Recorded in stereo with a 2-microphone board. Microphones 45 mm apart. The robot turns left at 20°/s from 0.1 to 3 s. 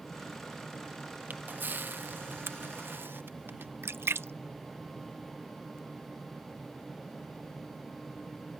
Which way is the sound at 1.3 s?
45° right (ahead or behind).